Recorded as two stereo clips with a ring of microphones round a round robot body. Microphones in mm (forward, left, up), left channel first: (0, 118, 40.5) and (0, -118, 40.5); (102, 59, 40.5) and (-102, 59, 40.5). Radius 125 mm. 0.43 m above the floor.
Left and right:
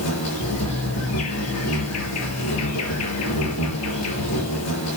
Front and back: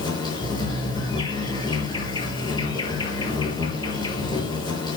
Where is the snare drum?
No snare drum in this recording.